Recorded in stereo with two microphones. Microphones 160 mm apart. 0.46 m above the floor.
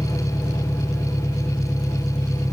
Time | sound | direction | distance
0.0 | an engine running | 15° left (ahead or behind) | ?